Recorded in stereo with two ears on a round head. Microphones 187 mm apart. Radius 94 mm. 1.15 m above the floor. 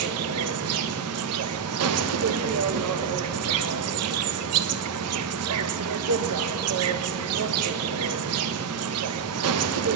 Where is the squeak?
No squeak in this recording.